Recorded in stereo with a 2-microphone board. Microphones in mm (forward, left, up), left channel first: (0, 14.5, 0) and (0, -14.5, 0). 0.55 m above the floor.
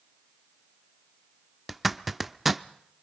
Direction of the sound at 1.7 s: 5° right (ahead or behind).